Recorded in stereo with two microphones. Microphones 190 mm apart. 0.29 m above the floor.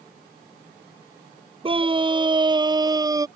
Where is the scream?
30° right (ahead or behind); by 3.3 s 20° right (ahead or behind).